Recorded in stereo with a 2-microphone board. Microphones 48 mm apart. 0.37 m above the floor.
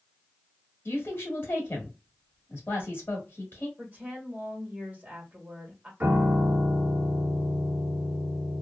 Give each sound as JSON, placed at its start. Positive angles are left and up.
{"t": 0.8, "sound": "a woman speaking", "side_deg": 45, "distance_m": 1.2}
{"t": 3.8, "sound": "a woman speaking", "side_deg": -25, "distance_m": 1.4}
{"t": 6.0, "sound": "a piano", "side_deg": -35, "distance_m": 1.1}